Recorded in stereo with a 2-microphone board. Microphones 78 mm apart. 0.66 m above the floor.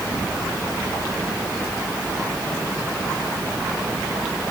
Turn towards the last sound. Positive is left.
No sound to turn to.